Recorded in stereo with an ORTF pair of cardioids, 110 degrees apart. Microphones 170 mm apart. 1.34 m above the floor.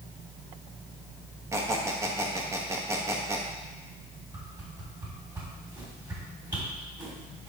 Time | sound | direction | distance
1.5 | a squeak | 15° right | 1.3 m
4.3 | a whoosh | 25° right | 3.5 m